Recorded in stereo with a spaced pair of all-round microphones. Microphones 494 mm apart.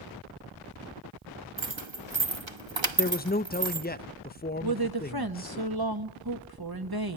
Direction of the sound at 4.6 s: 45° right (ahead or behind).